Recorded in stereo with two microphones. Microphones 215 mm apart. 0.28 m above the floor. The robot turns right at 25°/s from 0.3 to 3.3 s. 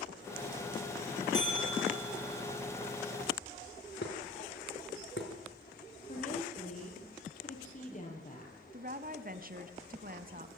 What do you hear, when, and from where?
1.3 s a bell: 75° right (ahead or behind), 9.5 m; by 2.3 s 50° right (ahead or behind), 9.5 m
4.0 s dishes clattering: 60° left (ahead or behind), 3 m
6.1 s a woman speaking: 35° left (ahead or behind), 7.5 m
8.7 s a woman speaking: 40° right (ahead or behind), 1.9 m